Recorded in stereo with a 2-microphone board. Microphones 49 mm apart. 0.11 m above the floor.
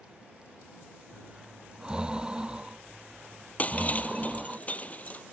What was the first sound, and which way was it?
Breathing, 15° right (ahead or behind).